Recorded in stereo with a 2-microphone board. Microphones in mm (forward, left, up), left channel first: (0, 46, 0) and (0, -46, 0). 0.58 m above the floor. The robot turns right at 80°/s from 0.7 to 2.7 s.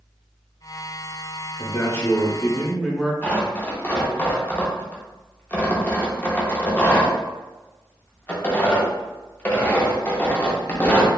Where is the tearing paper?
20° left (ahead or behind), 0.6 m.